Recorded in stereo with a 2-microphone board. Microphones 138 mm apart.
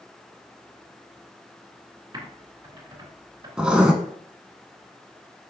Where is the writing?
5° right (ahead or behind), 1.0 m.